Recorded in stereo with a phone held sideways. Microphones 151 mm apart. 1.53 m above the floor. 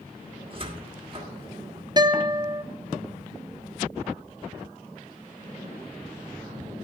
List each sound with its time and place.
0.5 s a cupboard door: 35° right (ahead or behind), 1.5 m
2.0 s a guitar: 30° right (ahead or behind), 0.7 m